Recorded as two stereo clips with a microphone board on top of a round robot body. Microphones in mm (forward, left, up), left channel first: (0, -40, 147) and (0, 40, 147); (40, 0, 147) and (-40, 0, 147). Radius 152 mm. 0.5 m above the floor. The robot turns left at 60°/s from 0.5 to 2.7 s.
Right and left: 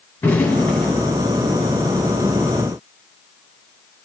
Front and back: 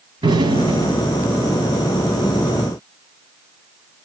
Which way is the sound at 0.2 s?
160° right.